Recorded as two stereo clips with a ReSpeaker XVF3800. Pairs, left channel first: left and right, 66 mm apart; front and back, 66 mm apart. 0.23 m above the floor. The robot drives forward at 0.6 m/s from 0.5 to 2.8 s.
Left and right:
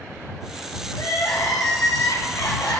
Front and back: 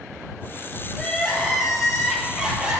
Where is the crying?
80° left, 2.5 m; by 2.8 s 105° left, 2.5 m.